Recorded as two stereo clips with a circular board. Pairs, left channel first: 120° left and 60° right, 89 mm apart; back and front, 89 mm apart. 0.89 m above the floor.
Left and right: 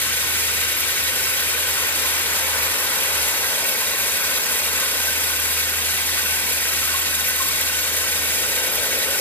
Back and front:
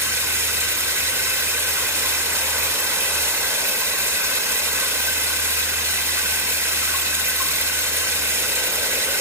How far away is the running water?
About 0.9 m.